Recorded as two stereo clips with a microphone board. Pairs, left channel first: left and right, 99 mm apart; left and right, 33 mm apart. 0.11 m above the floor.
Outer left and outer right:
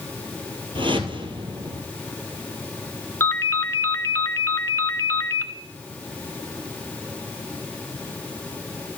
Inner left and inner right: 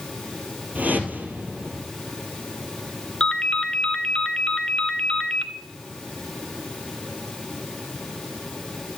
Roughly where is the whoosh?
Right.